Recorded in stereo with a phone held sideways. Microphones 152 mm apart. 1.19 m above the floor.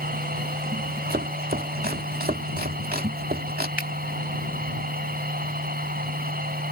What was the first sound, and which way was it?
A machine running, 75° right (ahead or behind).